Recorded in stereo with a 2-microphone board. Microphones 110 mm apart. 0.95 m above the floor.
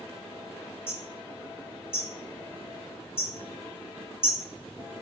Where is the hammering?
20° left (ahead or behind), 1.9 m.